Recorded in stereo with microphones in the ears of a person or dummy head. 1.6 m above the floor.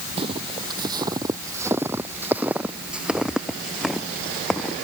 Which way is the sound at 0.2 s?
30° right (ahead or behind).